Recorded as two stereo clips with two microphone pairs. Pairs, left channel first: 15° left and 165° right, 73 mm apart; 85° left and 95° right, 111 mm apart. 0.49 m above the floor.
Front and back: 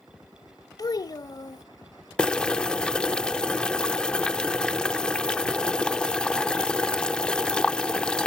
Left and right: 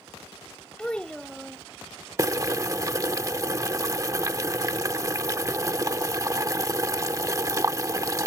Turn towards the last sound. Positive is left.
turn(degrees=-50)